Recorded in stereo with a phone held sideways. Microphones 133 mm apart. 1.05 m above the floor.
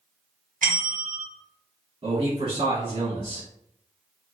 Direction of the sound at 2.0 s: 55° right (ahead or behind).